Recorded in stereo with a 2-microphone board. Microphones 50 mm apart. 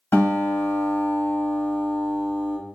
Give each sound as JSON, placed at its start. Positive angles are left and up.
{"t": 0.1, "sound": "a guitar", "side_deg": 55, "distance_m": 2.5}